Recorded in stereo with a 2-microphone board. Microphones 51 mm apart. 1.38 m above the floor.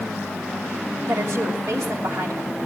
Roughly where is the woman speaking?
Right.